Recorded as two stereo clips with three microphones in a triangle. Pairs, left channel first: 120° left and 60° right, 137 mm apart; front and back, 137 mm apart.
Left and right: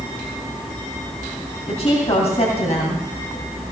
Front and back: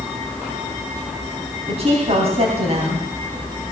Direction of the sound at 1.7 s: 150° left.